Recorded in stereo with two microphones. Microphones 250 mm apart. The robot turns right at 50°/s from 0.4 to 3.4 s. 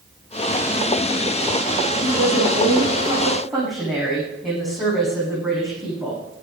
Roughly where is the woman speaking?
Right.